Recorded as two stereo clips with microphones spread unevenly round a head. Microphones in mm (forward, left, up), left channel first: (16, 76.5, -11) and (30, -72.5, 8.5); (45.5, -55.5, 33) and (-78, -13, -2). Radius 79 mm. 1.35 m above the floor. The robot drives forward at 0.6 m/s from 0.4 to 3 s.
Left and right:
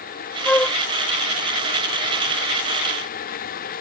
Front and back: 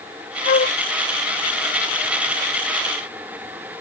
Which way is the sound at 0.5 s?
10° left.